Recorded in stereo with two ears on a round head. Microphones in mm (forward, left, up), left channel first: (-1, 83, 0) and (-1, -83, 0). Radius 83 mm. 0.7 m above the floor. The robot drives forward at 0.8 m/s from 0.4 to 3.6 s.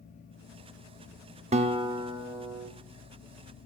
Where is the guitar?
35° right (ahead or behind), 0.8 m; by 2.7 s 15° right (ahead or behind), 1.6 m.